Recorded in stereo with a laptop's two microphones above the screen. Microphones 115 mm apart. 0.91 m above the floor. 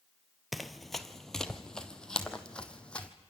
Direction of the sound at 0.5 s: Centre (ahead or behind).